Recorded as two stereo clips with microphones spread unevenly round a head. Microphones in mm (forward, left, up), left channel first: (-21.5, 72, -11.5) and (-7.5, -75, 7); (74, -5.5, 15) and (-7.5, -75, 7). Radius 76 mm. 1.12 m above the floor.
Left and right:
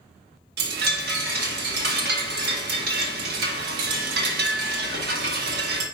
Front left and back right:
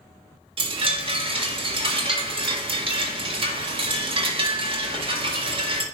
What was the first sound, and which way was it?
A chime, 105° right.